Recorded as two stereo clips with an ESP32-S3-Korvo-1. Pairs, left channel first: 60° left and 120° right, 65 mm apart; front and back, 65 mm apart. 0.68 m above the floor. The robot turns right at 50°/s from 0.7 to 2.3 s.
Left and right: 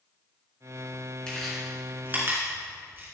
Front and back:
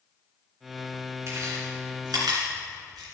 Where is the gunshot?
No gunshot in this recording.